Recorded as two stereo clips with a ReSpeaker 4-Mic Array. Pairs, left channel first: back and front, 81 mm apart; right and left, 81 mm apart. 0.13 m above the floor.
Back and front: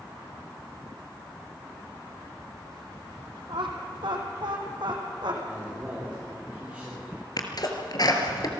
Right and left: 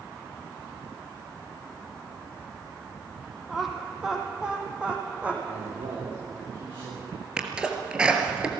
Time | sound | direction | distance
3.5 | laughter | straight ahead | 4 m
5.5 | a man speaking | 75° left | 9 m
7.4 | a sneeze | 165° left | 3 m